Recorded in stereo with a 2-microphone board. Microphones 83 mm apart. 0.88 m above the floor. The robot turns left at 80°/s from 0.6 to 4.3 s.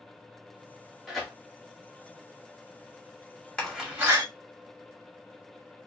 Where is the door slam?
10° left (ahead or behind), 2 m; by 4.2 s 45° right (ahead or behind), 2 m.